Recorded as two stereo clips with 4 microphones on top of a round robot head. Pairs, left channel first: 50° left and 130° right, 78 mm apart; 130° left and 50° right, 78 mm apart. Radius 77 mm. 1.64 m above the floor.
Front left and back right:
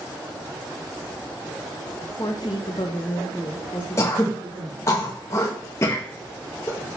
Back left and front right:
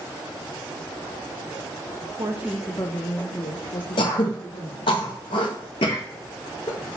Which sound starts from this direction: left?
Throat clearing, at 4.0 s.